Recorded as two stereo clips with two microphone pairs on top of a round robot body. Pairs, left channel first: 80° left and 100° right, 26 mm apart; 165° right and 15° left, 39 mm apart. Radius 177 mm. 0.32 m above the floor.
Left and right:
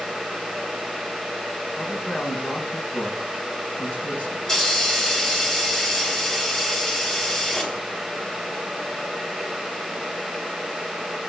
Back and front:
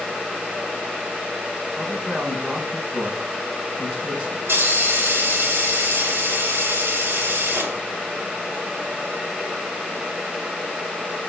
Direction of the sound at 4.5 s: 15° left.